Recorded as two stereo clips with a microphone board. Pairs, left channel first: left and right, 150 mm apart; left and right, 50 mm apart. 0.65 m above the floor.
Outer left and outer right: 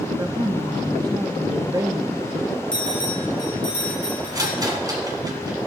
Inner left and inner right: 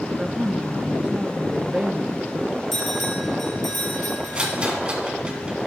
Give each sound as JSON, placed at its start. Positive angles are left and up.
{"t": 0.2, "sound": "a woman speaking", "side_deg": -25, "distance_m": 0.7}
{"t": 2.7, "sound": "a bell", "side_deg": 5, "distance_m": 4.5}
{"t": 4.3, "sound": "a rattle", "side_deg": -25, "distance_m": 1.7}